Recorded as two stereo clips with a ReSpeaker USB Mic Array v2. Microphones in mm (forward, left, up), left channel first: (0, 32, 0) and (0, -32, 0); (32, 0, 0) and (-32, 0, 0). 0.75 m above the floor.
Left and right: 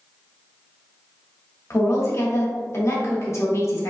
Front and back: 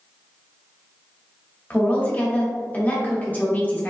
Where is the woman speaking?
60° left, 1.3 m.